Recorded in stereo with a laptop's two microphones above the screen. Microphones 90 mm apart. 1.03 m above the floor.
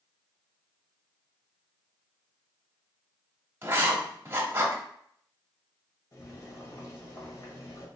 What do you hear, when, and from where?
3.6 s writing: 25° right (ahead or behind), 0.9 m
6.1 s boiling: 45° left (ahead or behind), 1.0 m